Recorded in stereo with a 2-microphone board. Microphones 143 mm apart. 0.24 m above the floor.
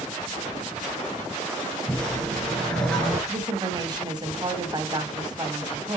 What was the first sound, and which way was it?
A whoosh, 5° left (ahead or behind).